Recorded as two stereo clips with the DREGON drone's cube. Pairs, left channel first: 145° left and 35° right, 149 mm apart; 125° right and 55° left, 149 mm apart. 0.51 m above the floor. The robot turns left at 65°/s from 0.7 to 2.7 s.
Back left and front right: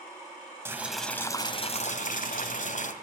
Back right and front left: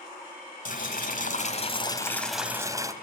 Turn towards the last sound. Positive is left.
turn(degrees=125)